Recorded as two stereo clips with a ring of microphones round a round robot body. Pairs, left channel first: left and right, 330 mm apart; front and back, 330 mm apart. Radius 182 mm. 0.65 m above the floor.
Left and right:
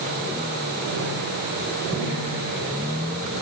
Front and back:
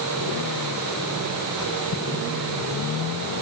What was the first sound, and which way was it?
Only background noise.